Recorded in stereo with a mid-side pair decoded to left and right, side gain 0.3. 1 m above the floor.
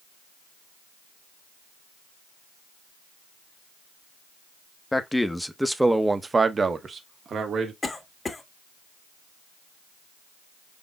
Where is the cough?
40° left, 1.8 m.